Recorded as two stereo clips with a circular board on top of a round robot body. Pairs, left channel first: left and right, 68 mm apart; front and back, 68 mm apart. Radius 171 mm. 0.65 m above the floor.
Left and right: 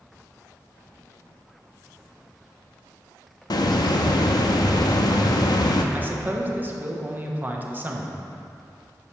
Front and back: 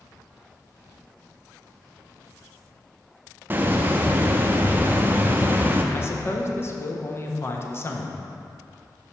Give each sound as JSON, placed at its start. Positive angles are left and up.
{"t": 3.5, "sound": "a hiss", "azimuth_deg": 115, "distance_m": 0.5}
{"t": 5.9, "sound": "a man speaking", "azimuth_deg": -35, "distance_m": 1.2}